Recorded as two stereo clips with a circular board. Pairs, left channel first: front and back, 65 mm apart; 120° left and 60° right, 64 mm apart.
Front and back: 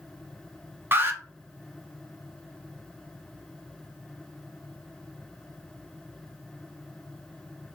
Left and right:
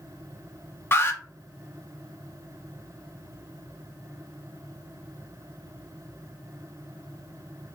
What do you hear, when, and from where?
0.9 s an alarm: 150° left, 0.6 m